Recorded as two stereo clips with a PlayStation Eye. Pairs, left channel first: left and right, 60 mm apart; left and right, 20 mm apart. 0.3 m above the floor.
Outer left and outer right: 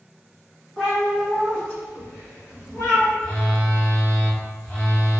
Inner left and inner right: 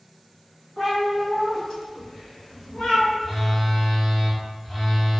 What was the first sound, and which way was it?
A cat meowing, 10° left (ahead or behind).